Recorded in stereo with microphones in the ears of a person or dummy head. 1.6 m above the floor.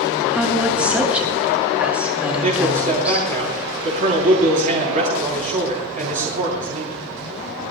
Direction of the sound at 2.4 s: 40° right (ahead or behind).